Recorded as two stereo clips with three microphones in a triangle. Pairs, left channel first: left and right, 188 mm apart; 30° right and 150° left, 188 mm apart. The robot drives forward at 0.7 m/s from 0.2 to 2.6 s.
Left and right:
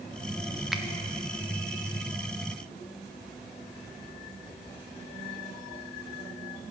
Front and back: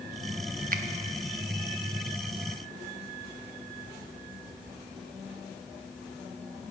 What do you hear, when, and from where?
0.7 s a finger snap: straight behind, 0.6 m